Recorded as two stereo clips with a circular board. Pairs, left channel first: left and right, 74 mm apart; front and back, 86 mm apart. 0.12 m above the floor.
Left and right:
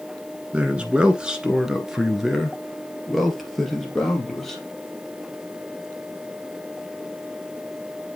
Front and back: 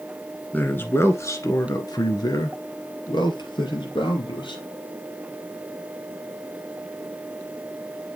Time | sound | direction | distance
0.5 | a man speaking | 40° right | 1.2 m